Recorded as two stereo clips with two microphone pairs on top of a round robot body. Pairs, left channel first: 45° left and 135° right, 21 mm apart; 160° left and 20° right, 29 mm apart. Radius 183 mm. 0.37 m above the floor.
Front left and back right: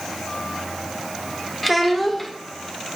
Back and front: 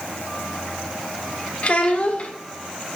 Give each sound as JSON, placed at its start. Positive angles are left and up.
{"t": 1.6, "sound": "a child speaking", "azimuth_deg": 135, "distance_m": 1.3}